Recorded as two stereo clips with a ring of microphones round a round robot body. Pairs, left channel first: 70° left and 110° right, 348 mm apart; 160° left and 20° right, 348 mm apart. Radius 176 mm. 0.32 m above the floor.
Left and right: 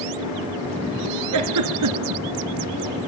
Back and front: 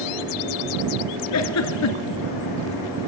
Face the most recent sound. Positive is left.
turn(degrees=-155)